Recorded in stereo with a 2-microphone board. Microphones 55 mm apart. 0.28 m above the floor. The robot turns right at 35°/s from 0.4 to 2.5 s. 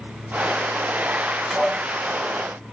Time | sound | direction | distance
1.5 | dishes clattering | 5° right (ahead or behind) | 1.3 m